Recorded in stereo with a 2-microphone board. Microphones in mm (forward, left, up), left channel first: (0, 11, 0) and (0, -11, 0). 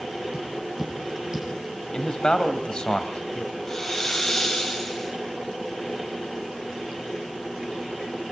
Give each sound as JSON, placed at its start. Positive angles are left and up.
{"t": 0.3, "sound": "tapping", "side_deg": -30, "distance_m": 9.0}
{"t": 1.9, "sound": "a man speaking", "side_deg": 40, "distance_m": 2.0}
{"t": 3.7, "sound": "a hiss", "side_deg": 20, "distance_m": 6.5}